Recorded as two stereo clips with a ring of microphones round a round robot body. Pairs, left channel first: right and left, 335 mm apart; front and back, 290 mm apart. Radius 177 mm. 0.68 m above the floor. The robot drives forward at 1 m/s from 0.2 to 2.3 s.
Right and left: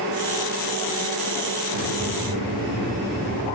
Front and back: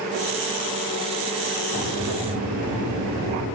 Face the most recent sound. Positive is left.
turn(degrees=150)